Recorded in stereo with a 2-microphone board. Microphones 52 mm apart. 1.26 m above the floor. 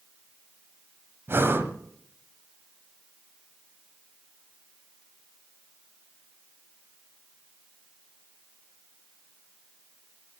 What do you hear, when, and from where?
1.3 s breathing: 50° right (ahead or behind), 1.6 m